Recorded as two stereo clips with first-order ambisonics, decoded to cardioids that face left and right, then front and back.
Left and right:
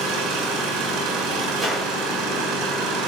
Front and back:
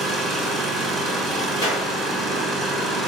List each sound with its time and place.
0.0 s an engine running: 75° right, 6 m
1.6 s a clap: 20° right, 6.5 m